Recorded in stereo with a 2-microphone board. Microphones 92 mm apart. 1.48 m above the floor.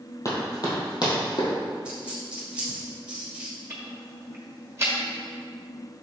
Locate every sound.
0.2 s running footsteps: 35° left (ahead or behind), 2.5 m; by 1.5 s 60° left (ahead or behind), 3 m
1.9 s a dropped coin: 10° right (ahead or behind), 2.0 m
3.7 s ticking: 30° right (ahead or behind), 1.4 m